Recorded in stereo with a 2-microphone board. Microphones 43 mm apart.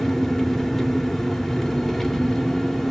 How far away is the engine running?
About 1.8 m.